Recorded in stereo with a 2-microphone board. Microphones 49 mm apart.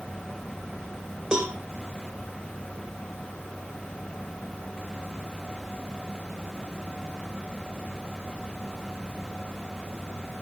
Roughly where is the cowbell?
Centre.